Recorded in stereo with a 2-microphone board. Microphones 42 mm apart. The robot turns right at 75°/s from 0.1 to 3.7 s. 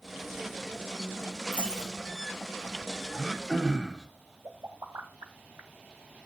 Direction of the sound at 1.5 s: 35° right (ahead or behind).